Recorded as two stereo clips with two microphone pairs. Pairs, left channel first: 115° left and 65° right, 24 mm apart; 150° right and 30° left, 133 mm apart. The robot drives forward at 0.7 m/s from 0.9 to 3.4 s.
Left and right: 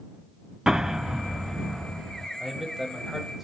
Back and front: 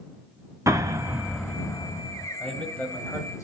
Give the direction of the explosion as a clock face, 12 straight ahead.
1 o'clock.